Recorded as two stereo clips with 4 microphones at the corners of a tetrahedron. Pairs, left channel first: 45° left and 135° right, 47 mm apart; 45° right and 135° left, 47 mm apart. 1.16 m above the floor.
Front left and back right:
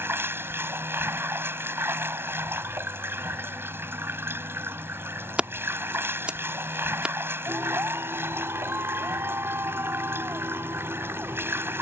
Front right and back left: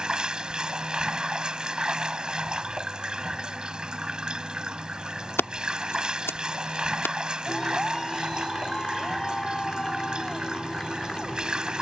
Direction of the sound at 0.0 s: 155° right.